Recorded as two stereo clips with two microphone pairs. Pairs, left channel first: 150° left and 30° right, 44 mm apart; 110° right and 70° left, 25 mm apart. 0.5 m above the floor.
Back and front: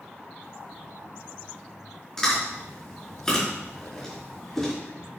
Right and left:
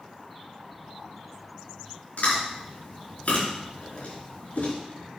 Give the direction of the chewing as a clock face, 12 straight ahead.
5 o'clock.